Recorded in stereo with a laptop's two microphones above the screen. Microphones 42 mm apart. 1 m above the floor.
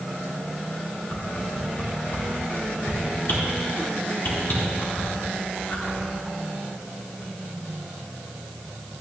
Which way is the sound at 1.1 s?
55° left (ahead or behind).